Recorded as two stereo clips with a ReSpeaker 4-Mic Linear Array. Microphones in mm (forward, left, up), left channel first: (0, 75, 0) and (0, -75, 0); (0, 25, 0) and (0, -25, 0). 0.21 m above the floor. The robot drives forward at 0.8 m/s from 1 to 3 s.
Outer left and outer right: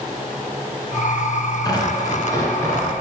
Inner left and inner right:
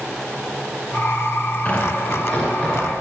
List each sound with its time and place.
1.6 s tearing paper: 30° left (ahead or behind), 1.7 m; by 2.9 s 20° left (ahead or behind), 2.5 m